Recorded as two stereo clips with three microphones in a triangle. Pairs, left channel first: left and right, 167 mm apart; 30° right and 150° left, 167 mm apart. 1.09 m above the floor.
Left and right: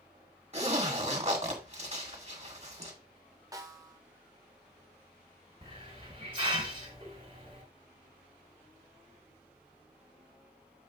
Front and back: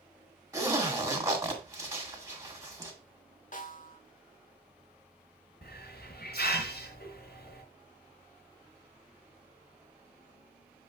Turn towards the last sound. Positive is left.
turn(degrees=-35)